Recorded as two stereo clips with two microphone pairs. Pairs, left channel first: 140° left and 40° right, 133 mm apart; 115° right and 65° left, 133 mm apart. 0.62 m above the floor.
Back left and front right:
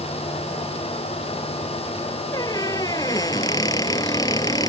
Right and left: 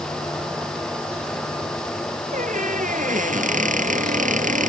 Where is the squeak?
75° left.